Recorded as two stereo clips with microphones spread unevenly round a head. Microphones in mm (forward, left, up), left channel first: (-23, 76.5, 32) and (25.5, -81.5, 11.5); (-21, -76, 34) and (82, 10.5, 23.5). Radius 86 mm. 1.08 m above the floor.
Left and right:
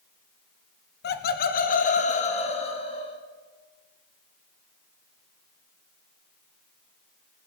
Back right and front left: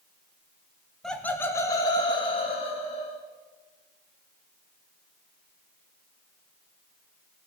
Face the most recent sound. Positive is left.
turn(degrees=165)